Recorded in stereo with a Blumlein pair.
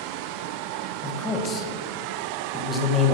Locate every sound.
1.0 s a man speaking: 20° left, 1.3 m